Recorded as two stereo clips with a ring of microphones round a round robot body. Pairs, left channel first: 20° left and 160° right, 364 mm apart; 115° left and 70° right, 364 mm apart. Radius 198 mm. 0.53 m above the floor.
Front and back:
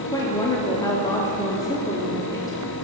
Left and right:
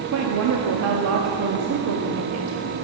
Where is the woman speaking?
55° right, 0.8 m.